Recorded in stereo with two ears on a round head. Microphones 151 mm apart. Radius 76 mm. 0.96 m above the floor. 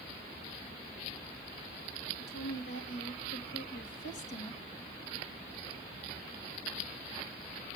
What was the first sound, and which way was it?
A woman speaking, 70° left (ahead or behind).